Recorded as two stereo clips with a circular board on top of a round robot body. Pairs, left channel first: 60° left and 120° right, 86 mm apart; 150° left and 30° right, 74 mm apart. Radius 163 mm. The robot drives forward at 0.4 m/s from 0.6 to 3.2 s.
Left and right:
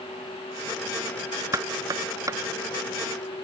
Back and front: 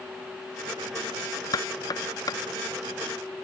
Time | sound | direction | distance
1.5 | knocking | 175° right | ?